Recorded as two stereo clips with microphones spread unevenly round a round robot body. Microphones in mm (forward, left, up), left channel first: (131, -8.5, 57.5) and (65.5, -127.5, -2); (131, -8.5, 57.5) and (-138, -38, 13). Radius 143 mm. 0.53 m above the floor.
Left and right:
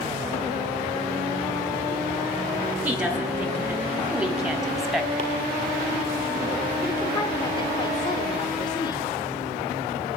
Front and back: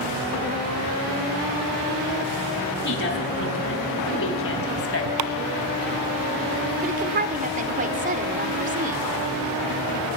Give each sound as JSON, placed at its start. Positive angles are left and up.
{"t": 2.9, "sound": "a woman speaking", "azimuth_deg": -45, "distance_m": 6.5}
{"t": 5.2, "sound": "chopping", "azimuth_deg": 180, "distance_m": 2.0}
{"t": 6.8, "sound": "a woman speaking", "azimuth_deg": 140, "distance_m": 1.9}